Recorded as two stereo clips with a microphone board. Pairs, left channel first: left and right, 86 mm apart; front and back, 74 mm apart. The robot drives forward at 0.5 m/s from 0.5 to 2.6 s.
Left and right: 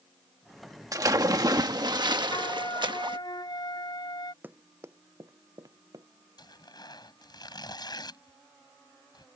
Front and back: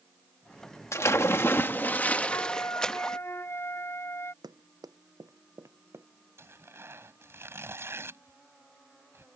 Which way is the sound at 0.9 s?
45° right.